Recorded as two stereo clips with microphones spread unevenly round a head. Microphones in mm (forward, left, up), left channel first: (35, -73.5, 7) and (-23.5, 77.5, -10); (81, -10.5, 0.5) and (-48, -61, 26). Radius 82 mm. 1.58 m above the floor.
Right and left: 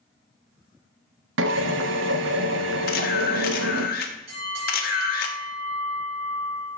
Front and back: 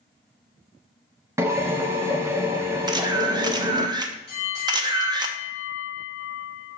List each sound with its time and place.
1.4 s a drill: 125° left, 1.0 m
2.9 s a camera shutter: 100° right, 1.1 m
4.3 s a bell: 75° left, 4.5 m